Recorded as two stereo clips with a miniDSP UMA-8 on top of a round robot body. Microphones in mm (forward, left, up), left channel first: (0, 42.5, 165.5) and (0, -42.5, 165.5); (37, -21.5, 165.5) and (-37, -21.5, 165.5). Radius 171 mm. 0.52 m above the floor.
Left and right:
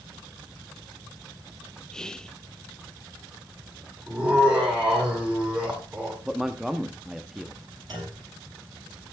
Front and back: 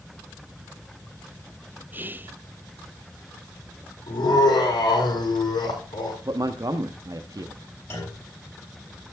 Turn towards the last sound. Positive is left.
turn(degrees=-55)